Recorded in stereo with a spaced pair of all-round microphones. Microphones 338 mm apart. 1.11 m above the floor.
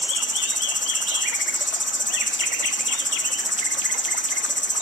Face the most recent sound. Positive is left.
turn(degrees=45)  # may be behind; listen again after turning